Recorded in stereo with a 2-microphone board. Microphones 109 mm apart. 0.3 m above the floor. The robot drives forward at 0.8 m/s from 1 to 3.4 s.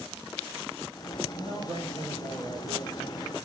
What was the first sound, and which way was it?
A man speaking, 55° right (ahead or behind).